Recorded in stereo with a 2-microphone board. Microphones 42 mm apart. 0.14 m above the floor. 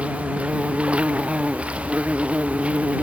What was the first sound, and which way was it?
An insect, 30° right (ahead or behind).